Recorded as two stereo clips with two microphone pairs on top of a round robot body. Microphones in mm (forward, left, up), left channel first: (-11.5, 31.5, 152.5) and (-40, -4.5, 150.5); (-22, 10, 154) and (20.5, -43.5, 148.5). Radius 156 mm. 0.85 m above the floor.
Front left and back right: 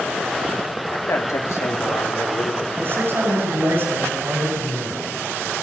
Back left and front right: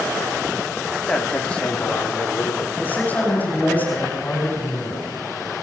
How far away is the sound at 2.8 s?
About 6 m.